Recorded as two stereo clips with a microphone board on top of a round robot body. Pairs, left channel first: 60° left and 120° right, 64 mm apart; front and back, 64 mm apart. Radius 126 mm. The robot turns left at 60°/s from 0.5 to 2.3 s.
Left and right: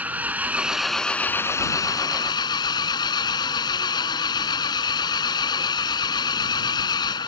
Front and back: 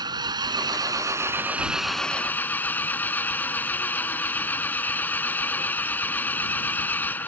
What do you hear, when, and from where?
0.0 s an engine running: 175° left; by 7.3 s 65° left